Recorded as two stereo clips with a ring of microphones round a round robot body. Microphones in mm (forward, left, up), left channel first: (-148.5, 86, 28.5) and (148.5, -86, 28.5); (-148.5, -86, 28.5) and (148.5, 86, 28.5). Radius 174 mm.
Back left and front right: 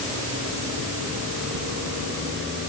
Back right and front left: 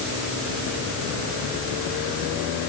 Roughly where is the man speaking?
I don't hear a man speaking.